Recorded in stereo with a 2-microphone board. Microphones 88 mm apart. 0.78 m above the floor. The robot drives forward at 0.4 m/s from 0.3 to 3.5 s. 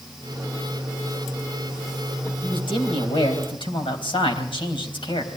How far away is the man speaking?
About 4 m.